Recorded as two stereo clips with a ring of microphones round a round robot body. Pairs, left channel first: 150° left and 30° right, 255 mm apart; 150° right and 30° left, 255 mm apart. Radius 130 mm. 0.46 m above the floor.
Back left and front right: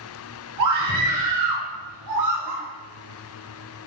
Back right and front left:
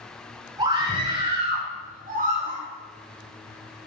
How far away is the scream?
About 6.5 m.